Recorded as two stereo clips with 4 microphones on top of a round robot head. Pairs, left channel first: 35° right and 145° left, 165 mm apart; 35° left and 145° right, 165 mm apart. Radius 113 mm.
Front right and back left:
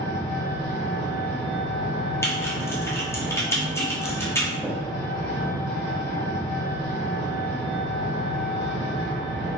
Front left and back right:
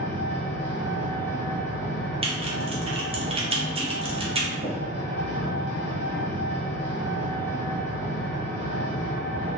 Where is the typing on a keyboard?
105° right, 1.0 m.